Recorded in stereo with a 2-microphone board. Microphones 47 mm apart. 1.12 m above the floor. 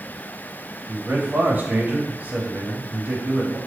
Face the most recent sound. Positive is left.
turn(degrees=-45)  # may be behind; listen again after turning